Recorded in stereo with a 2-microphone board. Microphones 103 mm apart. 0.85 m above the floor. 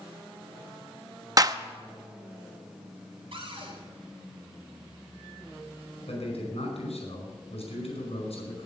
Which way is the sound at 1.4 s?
35° right (ahead or behind).